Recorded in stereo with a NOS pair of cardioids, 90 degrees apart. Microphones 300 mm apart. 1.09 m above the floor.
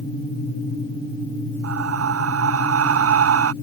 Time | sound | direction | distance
1.6 | breathing | 50° right | ?